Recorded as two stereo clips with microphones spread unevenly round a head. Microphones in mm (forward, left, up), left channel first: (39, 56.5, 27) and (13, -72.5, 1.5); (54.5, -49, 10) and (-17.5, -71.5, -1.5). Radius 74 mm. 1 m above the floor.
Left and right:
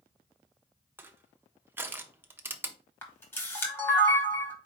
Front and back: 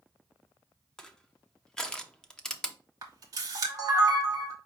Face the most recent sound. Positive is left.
turn(degrees=155)